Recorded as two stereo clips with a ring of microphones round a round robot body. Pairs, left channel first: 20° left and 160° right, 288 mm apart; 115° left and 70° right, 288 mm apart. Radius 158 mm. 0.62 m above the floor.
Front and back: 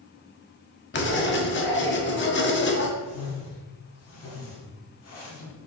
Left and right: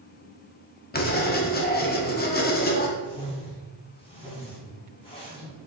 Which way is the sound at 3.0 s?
45° left.